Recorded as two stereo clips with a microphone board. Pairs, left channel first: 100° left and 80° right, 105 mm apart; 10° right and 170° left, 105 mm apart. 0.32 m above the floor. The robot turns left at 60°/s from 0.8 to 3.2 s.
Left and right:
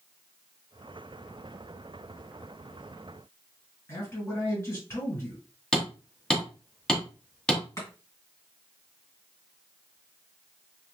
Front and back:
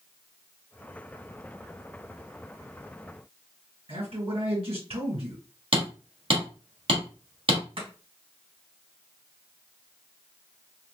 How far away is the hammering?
About 1.4 m.